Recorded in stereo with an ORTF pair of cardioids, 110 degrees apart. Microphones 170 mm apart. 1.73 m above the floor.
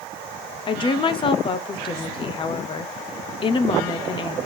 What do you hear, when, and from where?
0.7 s a woman speaking: 30° left, 0.8 m